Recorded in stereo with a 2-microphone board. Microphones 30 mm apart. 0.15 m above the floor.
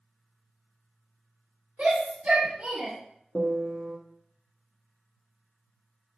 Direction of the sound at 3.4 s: 70° right (ahead or behind).